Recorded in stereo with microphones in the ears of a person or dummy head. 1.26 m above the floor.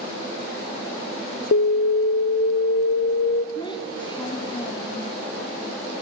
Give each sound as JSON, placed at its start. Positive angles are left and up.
{"t": 1.5, "sound": "an alarm", "side_deg": 50, "distance_m": 0.7}
{"t": 3.5, "sound": "a child speaking", "side_deg": 25, "distance_m": 1.0}